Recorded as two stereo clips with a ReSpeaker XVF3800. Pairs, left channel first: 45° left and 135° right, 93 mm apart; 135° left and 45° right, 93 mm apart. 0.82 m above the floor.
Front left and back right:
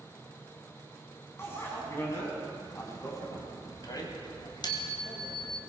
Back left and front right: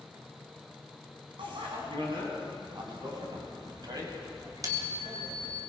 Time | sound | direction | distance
1.4 | a bicycle bell | 20° right | 5 m